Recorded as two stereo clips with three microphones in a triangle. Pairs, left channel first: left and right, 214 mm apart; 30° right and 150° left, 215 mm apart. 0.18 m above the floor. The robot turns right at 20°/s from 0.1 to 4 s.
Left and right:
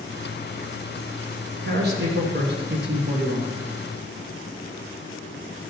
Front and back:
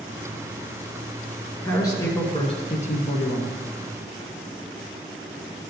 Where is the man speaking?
105° right, 2 m; by 3.6 s 65° right, 2 m.